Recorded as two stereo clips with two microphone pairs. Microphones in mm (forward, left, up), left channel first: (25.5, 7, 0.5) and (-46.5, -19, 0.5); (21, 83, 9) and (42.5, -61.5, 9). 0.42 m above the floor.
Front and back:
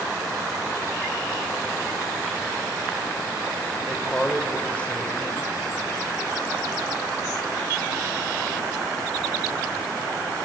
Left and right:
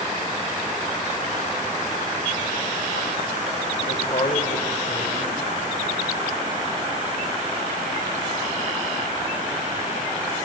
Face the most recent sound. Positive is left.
turn(degrees=90)